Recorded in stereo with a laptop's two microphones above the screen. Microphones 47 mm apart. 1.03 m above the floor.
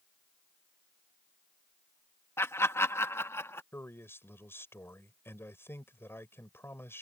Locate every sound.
2.4 s laughter: 70° left (ahead or behind)
3.7 s a man speaking: 60° left (ahead or behind)